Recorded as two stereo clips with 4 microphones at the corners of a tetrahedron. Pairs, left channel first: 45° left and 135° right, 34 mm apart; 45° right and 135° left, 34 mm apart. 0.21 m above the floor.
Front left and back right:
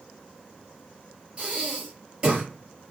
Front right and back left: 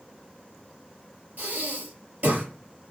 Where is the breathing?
160° left, 5 m.